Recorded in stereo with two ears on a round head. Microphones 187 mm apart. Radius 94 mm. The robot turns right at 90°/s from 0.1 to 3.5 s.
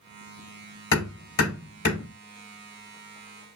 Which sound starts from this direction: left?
Hammering, at 0.9 s.